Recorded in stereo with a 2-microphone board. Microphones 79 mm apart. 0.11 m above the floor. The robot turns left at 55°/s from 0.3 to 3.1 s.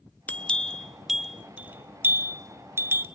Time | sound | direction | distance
0.3 | a bell | 20° left (ahead or behind) | 0.8 m